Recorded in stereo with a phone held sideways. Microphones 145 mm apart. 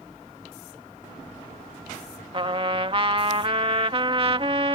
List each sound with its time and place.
2.3 s a trumpet: 40° right (ahead or behind)